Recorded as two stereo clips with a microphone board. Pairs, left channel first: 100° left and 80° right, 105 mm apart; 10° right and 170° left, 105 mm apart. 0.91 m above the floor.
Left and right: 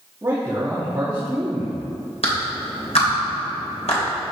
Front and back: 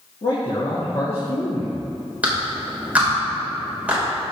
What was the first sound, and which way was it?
A man speaking, 25° right.